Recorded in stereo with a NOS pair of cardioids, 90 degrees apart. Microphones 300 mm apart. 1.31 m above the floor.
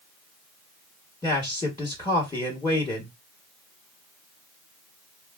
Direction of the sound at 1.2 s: 15° left.